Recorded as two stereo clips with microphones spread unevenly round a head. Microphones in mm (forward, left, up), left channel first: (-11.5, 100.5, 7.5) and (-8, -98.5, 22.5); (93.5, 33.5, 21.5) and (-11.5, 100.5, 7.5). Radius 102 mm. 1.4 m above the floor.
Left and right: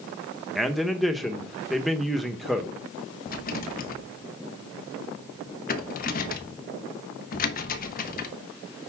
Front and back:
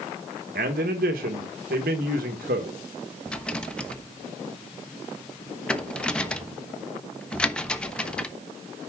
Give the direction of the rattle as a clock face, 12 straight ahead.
10 o'clock.